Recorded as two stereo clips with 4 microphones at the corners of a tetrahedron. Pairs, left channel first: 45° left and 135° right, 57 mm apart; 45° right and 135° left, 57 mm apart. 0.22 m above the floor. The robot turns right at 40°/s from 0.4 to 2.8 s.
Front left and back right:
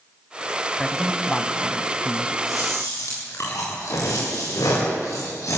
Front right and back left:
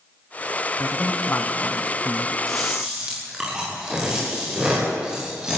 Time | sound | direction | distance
0.8 | a man speaking | 45° right | 1.5 m
2.5 | chewing | 45° left | 9 m